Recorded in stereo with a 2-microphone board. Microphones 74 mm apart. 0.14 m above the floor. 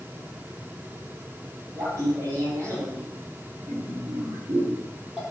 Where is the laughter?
40° right (ahead or behind), 5.5 m; by 5.2 s 15° right (ahead or behind), 4.5 m.